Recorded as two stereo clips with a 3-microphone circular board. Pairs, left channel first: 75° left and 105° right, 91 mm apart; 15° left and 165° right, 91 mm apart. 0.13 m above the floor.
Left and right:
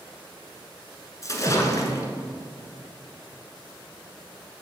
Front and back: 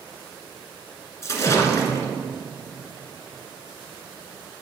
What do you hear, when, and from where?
1.2 s a splash: 50° left, 1.1 m